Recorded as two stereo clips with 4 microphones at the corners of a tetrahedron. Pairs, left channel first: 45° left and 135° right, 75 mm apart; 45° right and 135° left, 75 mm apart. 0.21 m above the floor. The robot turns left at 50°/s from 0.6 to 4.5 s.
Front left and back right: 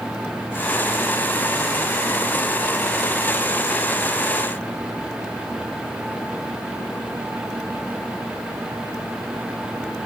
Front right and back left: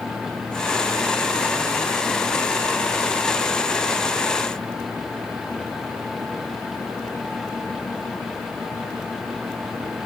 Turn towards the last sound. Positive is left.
No sound to turn to.